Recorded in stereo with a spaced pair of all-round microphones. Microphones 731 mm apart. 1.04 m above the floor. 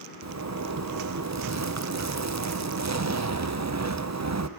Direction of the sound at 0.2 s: 25° right (ahead or behind).